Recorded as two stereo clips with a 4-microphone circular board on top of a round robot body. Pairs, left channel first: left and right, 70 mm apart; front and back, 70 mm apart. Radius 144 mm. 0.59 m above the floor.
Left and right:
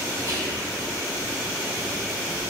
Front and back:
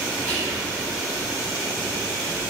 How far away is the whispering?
About 1.3 m.